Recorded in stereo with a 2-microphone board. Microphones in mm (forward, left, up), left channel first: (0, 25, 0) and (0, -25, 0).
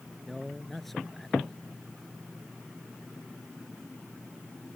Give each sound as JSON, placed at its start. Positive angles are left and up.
{"t": 0.2, "sound": "a man speaking", "side_deg": 5}